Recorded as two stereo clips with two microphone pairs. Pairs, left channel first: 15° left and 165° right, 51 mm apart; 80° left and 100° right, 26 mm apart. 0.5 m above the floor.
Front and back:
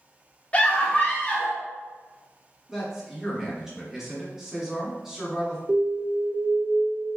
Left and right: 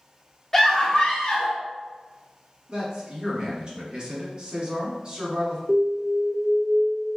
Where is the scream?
20° left, 0.9 m; by 1.6 s 70° left, 1.2 m.